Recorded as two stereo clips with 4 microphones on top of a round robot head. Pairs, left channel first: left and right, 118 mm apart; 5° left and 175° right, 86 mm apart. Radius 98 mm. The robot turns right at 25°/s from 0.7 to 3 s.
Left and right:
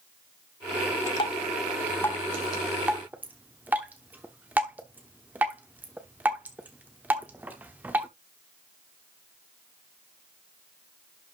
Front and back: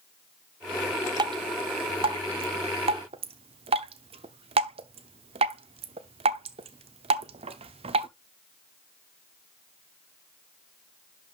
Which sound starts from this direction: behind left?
Dripping, at 1.2 s.